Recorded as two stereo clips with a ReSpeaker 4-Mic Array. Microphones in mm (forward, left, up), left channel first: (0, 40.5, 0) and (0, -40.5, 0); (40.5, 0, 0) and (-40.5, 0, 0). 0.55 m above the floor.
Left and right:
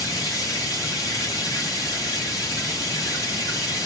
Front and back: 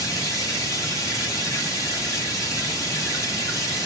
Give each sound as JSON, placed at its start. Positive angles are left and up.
{"t": 0.0, "sound": "running water", "azimuth_deg": 45, "distance_m": 1.9}